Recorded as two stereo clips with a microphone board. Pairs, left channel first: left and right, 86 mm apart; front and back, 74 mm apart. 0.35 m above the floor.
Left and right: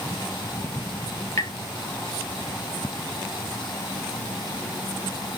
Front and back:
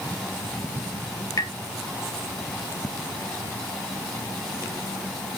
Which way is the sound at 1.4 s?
35° left.